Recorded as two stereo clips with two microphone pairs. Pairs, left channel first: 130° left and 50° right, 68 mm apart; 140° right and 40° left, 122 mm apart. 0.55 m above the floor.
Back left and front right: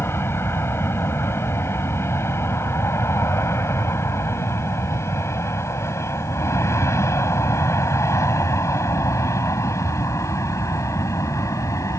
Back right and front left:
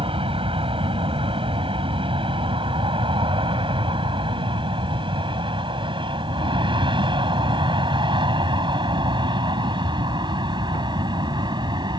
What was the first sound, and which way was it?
An aircraft, 75° left.